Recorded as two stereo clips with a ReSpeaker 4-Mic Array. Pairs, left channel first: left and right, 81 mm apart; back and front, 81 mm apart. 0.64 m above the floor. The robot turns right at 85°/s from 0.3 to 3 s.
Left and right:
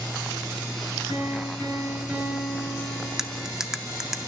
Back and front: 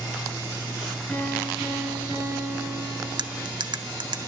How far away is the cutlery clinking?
About 0.6 m.